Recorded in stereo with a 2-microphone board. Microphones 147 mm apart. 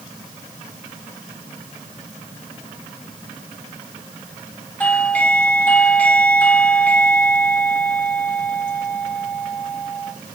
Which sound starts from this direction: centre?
A doorbell, at 4.8 s.